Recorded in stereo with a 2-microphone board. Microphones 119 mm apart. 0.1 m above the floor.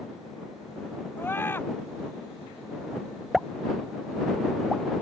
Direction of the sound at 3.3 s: Centre (ahead or behind).